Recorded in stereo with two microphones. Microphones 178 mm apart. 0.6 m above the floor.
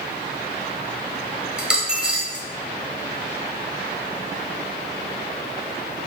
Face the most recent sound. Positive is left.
turn(degrees=-5)  # may be behind; listen again after turning